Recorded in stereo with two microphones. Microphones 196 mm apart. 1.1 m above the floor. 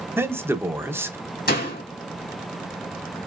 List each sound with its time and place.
0.2 s a man speaking: 10° right (ahead or behind), 0.8 m
1.5 s a door slam: 55° left (ahead or behind), 2.5 m